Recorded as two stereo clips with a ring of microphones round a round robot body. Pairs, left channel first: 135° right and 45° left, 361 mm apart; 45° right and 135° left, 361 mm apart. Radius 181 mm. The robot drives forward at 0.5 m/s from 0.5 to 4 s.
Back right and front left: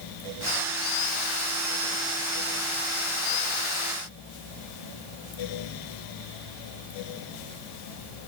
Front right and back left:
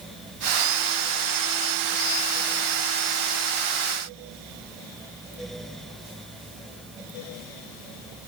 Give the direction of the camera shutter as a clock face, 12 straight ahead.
I don't hear a camera shutter.